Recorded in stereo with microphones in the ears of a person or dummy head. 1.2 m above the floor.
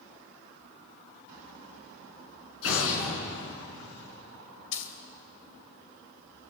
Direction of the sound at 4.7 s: 70° left (ahead or behind).